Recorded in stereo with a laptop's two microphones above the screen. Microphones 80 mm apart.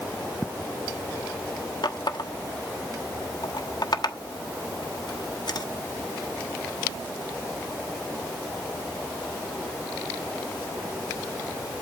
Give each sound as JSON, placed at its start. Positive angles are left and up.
{"t": 1.8, "sound": "a running tap", "side_deg": 65, "distance_m": 1.2}